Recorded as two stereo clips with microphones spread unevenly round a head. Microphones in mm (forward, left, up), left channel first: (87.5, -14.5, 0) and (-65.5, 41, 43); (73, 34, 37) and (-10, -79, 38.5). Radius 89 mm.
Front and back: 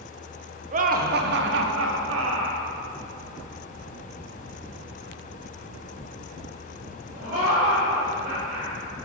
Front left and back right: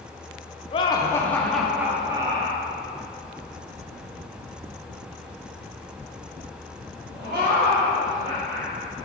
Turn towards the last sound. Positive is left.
turn(degrees=-155)